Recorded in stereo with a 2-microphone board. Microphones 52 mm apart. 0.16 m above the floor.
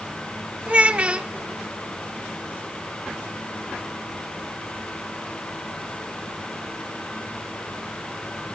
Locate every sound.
0.7 s a child speaking: 25° right (ahead or behind), 0.7 m